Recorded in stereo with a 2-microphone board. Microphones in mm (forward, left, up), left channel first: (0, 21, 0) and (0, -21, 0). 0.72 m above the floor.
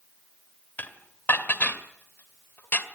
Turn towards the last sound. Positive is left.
turn(degrees=55)  # may be behind; listen again after turning